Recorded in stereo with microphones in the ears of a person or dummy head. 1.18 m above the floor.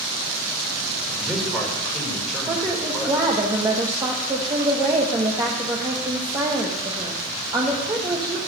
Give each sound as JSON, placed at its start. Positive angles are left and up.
{"t": 1.1, "sound": "a man speaking", "side_deg": 0, "distance_m": 5.0}
{"t": 2.5, "sound": "a woman speaking", "side_deg": -20, "distance_m": 1.3}